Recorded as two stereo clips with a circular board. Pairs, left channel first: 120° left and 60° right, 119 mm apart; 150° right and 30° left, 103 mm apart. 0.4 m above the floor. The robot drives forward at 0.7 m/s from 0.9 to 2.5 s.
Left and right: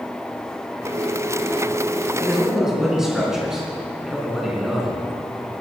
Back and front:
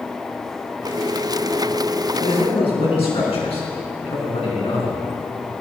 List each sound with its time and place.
2.2 s a man speaking: 145° right, 3.5 m